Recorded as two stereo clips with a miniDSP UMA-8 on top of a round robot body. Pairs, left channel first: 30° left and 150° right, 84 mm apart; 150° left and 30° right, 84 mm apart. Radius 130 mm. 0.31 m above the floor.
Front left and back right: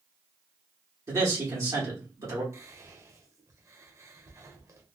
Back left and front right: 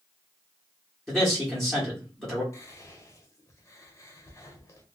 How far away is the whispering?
About 1.2 m.